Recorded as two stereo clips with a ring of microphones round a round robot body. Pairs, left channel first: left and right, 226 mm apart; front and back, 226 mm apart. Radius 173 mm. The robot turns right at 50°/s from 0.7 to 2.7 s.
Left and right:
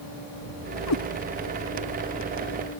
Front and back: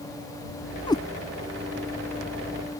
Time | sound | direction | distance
0.9 | a cat meowing | 70° left | ?